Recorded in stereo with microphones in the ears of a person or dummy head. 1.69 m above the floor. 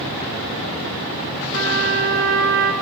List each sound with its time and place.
1.5 s a trumpet: 65° right (ahead or behind), 1.9 m